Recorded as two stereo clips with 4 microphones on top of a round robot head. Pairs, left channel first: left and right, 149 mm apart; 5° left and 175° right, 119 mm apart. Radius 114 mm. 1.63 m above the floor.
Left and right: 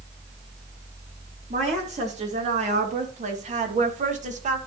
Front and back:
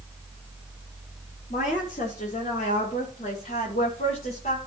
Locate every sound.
1.5 s a woman speaking: 45° right, 3.5 m; by 4.6 s 50° right, 1.9 m